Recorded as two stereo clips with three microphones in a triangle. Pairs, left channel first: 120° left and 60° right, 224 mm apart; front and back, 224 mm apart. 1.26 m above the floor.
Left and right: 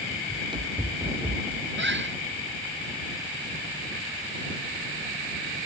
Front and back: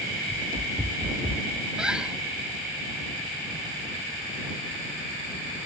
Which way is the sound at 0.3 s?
130° right.